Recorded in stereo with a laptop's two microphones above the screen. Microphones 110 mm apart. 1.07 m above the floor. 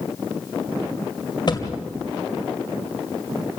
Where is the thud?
40° left (ahead or behind), 1.8 m.